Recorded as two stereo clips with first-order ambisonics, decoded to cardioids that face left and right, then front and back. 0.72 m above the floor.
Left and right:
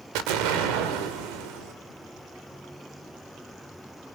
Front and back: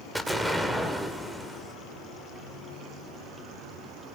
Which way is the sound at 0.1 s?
95° right.